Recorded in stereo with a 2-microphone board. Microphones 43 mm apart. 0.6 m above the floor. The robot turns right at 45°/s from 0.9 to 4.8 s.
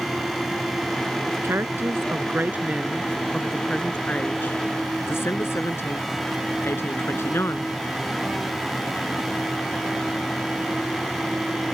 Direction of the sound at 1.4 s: 85° right.